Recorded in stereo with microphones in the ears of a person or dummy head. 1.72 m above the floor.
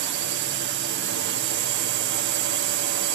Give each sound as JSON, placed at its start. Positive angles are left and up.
{"t": 0.0, "sound": "a drone", "side_deg": -55}